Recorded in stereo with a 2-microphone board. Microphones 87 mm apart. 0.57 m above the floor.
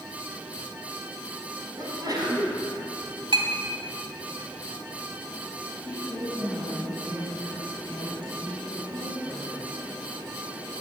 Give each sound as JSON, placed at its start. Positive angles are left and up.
{"t": 1.8, "sound": "a sneeze", "side_deg": -50, "distance_m": 4.5}
{"t": 3.3, "sound": "a clink", "side_deg": -80, "distance_m": 2.0}
{"t": 5.8, "sound": "a woman speaking", "side_deg": -70, "distance_m": 5.0}